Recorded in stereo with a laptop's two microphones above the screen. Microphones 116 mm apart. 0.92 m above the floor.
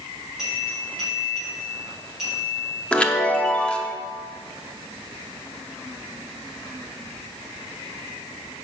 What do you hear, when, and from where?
0.4 s a bell: 5° right (ahead or behind), 4 m
2.9 s a chime: 10° left (ahead or behind), 0.6 m